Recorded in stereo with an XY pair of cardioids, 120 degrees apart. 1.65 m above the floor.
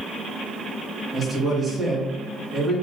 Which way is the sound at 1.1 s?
25° right.